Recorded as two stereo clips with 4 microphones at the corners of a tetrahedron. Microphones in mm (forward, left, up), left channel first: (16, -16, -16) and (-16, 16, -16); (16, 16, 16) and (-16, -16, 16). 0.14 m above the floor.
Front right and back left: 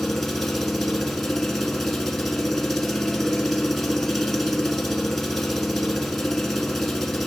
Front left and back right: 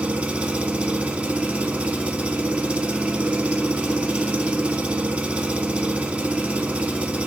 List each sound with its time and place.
0.0 s an engine running: 125° right, 0.8 m